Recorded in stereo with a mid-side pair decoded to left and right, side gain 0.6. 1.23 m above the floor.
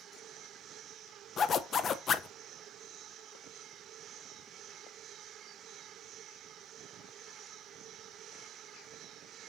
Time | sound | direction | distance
1.4 | a zipper | 40° left | 0.7 m